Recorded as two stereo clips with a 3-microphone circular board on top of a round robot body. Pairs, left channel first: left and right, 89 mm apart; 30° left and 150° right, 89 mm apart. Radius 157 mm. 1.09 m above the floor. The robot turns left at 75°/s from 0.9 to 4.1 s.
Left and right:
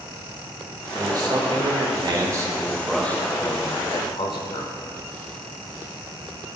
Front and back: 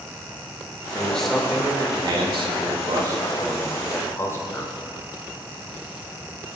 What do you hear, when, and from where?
0.9 s a man speaking: 35° right, 1.8 m; by 4.7 s 85° left, 1.8 m